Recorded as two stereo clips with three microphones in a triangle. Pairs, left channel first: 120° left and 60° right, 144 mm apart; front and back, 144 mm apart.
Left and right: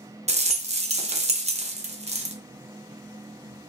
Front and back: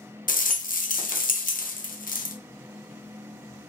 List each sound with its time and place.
0.3 s a rattle: 20° right, 0.7 m